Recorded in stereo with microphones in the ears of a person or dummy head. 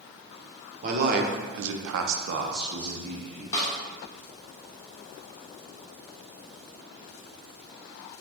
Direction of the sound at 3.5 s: 25° left (ahead or behind).